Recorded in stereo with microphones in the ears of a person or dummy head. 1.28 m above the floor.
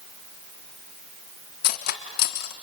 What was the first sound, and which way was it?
Cutlery clinking, 60° left (ahead or behind).